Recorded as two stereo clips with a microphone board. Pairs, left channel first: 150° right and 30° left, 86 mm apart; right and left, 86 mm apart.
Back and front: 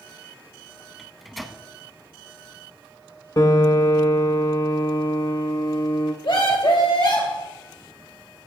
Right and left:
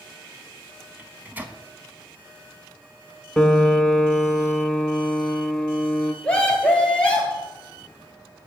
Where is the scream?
165° right, 2.5 m.